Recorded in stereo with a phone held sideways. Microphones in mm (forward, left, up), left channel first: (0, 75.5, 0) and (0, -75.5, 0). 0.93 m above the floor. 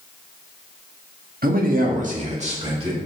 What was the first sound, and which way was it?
A man speaking, 80° right.